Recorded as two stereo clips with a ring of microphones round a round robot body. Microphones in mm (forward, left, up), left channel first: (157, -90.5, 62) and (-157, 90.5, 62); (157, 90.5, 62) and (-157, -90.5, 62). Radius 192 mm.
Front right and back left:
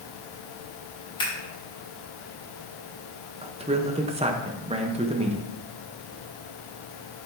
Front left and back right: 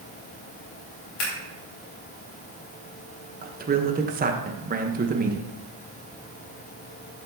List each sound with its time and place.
1.2 s scissors: 50° left, 3.5 m
3.4 s a man speaking: 165° right, 1.0 m